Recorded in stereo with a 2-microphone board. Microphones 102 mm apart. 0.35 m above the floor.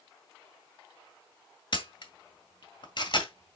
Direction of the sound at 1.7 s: 55° left (ahead or behind).